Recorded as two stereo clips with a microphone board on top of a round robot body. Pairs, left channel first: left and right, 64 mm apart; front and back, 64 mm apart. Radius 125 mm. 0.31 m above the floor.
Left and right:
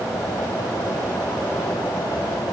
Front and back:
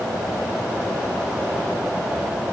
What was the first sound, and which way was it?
Only background noise.